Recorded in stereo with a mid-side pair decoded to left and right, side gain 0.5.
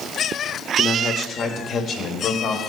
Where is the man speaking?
40° left, 1.0 m; by 2.6 s 65° left, 2 m.